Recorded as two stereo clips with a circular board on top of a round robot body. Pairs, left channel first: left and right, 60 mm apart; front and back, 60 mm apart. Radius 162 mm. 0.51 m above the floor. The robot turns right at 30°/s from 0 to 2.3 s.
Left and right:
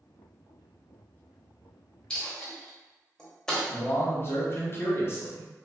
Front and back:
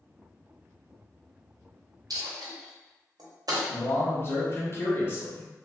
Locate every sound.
2.1 s a dropped coin: 170° left, 0.8 m; by 3.6 s 175° left, 0.8 m
3.7 s a man speaking: 45° left, 1.1 m